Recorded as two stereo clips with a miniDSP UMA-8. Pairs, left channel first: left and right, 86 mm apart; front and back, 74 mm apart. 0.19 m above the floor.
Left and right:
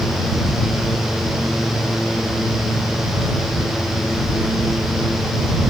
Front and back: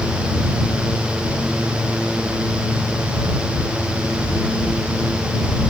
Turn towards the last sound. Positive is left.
No sound to turn to.